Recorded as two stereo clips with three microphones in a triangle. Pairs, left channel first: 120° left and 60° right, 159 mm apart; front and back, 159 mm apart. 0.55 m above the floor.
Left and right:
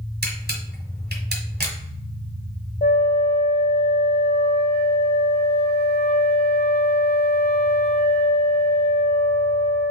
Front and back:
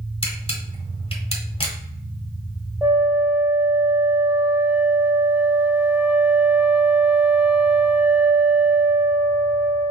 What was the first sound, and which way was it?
A camera shutter, 55° right.